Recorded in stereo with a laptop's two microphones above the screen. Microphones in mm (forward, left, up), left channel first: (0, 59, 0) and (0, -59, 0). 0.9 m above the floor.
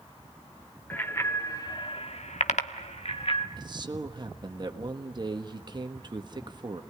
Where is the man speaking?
40° right (ahead or behind), 1.4 m.